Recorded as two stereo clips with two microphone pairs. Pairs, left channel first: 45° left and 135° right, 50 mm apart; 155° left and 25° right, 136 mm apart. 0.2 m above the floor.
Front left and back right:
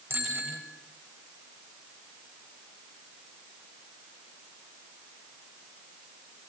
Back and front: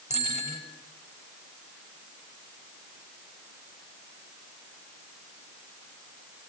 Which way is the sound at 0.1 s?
175° right.